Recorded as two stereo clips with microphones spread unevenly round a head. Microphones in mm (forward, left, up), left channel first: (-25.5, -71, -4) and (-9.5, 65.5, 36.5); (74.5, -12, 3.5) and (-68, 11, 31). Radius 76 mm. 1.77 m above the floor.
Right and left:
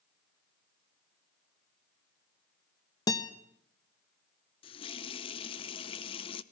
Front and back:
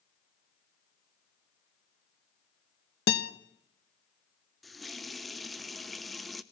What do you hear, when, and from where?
3.1 s a guitar: 20° right, 1.3 m
4.6 s a running tap: 130° right, 0.8 m